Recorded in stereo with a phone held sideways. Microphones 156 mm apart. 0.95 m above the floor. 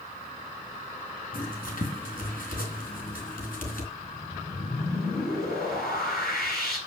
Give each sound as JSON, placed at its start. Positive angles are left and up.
{"t": 1.3, "sound": "writing", "side_deg": 70, "distance_m": 3.5}
{"t": 4.0, "sound": "a whoosh", "side_deg": 75, "distance_m": 9.0}